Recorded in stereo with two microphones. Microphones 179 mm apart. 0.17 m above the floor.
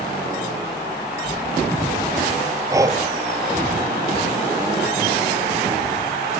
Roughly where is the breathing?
Centre.